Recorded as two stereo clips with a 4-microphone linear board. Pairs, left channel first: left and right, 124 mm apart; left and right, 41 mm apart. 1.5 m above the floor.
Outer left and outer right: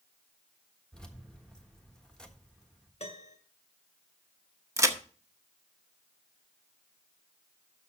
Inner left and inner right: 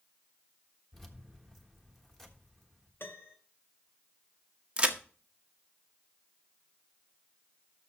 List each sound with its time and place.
0.9 s keys jangling: 5° left (ahead or behind), 1.3 m
3.0 s a piano: 65° left (ahead or behind), 2.5 m
4.8 s a crack: 25° right (ahead or behind), 0.9 m